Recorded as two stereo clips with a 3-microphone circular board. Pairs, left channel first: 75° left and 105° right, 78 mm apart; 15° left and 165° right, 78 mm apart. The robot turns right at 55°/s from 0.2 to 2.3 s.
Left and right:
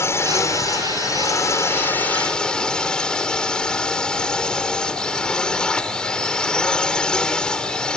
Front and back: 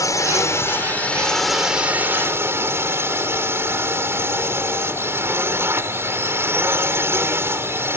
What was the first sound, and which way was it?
A drone, 35° left.